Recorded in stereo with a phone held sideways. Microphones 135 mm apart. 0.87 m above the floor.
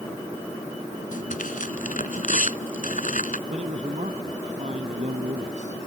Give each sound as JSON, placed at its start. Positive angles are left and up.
{"t": 1.1, "sound": "tearing paper", "side_deg": 80}
{"t": 3.5, "sound": "a man speaking", "side_deg": -65}